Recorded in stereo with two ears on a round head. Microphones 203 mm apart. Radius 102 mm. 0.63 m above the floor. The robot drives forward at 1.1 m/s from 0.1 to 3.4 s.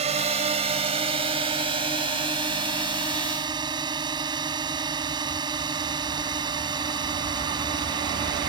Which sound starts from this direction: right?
A drone, at 0.0 s.